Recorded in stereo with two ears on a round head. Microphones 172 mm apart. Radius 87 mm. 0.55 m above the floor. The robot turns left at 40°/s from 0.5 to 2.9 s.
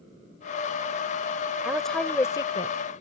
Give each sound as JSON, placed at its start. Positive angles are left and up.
{"t": 1.6, "sound": "a woman speaking", "azimuth_deg": -175}